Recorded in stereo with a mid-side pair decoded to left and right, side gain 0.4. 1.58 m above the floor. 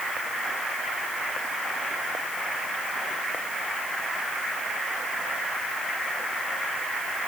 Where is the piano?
No piano in this recording.